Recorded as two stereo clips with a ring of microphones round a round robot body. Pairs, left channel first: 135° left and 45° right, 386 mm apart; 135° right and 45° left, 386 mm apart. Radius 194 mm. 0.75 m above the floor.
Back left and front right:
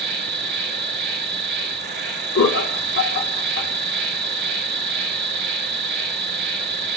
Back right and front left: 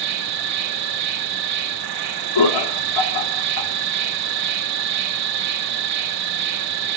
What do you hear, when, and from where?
0.0 s an insect: 10° left, 2.5 m
2.4 s laughter: 165° right, 1.8 m